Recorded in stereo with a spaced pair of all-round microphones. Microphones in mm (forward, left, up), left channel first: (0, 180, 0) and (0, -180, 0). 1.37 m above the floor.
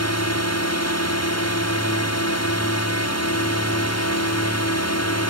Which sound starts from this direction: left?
A drone, at 0.0 s.